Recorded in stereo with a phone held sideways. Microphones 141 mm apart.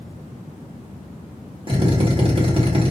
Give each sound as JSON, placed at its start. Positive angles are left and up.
{"t": 1.7, "sound": "a drill", "side_deg": -40, "distance_m": 1.3}